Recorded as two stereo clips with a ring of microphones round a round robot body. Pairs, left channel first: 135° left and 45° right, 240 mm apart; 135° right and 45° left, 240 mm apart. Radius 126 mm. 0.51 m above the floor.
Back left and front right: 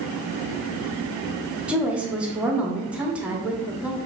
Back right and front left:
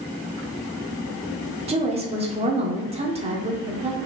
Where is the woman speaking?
35° left, 0.9 m.